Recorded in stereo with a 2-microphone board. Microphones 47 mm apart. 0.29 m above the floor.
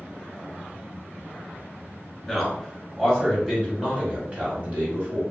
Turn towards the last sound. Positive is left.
turn(degrees=-45)  # may be behind; listen again after turning